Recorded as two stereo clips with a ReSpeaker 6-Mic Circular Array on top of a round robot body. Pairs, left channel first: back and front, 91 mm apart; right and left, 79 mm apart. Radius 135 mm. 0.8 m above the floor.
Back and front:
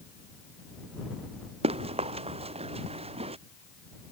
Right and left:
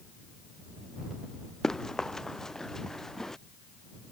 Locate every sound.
1.6 s running footsteps: 5° right